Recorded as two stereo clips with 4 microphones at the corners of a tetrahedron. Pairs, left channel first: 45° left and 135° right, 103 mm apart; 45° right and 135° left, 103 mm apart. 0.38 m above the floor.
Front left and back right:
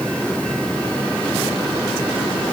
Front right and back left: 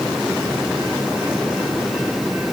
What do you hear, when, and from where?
Only background noise.